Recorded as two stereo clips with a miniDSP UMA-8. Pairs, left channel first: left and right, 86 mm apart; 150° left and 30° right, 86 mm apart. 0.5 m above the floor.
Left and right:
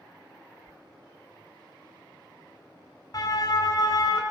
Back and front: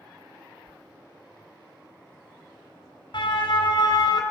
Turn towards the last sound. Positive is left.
turn(degrees=125)